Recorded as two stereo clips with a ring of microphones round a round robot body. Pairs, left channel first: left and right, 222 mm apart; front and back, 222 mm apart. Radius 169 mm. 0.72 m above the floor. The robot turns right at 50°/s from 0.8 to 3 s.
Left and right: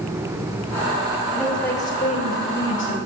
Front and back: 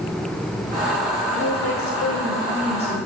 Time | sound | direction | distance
1.3 | a woman speaking | 10° right | 3 m